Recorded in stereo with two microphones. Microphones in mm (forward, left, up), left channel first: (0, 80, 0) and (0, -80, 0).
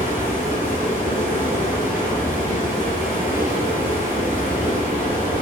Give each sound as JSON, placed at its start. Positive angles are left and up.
{"t": 0.0, "sound": "running water", "side_deg": 60, "distance_m": 1.5}